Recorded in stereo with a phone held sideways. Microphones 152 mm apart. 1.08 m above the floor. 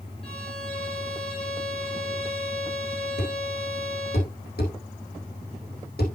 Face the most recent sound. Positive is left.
turn(degrees=75)  # may be behind; listen again after turning